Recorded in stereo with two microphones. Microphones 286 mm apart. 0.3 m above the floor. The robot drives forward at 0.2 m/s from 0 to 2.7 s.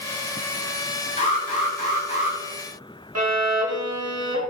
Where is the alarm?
20° left (ahead or behind), 1.4 m.